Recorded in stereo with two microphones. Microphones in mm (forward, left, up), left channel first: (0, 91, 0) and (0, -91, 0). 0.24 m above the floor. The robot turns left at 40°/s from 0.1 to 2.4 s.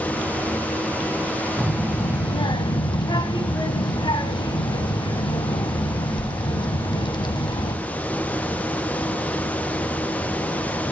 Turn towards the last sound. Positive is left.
turn(degrees=145)